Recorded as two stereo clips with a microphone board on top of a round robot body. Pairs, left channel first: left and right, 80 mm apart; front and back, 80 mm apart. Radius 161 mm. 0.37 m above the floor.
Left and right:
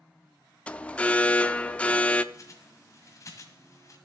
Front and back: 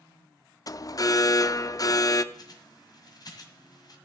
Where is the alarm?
20° left, 0.7 m.